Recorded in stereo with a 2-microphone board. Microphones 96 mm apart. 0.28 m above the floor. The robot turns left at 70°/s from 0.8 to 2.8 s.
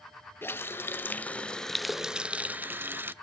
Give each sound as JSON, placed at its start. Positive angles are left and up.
{"t": 0.4, "sound": "a running tap", "side_deg": 20, "distance_m": 0.6}